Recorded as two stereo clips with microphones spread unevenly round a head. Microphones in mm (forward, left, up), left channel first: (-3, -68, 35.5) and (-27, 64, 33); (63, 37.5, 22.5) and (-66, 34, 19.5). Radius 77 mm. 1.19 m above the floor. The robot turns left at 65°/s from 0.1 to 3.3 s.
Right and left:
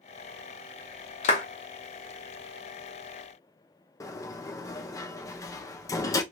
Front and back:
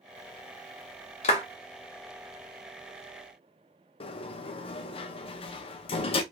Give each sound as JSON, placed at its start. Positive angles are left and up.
{"t": 1.2, "sound": "a clap", "azimuth_deg": -40, "distance_m": 0.9}
{"t": 4.0, "sound": "a sliding door", "azimuth_deg": -25, "distance_m": 0.6}